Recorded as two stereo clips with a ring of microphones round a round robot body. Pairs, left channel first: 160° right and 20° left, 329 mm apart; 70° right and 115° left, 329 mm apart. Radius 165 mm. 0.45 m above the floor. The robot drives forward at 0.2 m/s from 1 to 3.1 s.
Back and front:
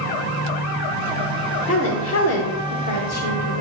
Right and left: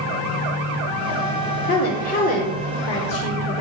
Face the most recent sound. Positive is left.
turn(degrees=-135)